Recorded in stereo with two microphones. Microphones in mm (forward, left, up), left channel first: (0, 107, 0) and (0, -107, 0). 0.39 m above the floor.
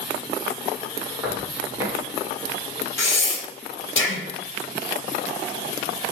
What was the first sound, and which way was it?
Footsteps, 15° right (ahead or behind).